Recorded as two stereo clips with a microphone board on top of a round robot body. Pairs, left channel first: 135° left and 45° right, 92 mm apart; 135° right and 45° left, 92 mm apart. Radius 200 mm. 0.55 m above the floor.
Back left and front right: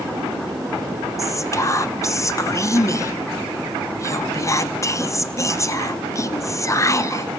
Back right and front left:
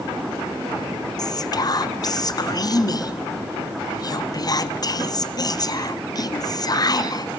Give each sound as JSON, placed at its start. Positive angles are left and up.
{"t": 1.2, "sound": "whispering", "azimuth_deg": -175, "distance_m": 1.1}